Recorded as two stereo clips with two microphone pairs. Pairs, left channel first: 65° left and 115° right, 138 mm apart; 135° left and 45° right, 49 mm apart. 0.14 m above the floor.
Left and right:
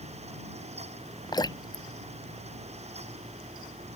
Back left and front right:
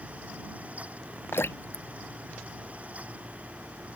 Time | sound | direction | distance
1.3 | dripping | 120° left | ?